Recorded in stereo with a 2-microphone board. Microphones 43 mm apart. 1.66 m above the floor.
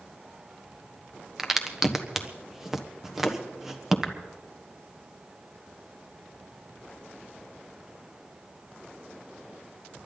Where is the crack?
10° right (ahead or behind), 1.2 m.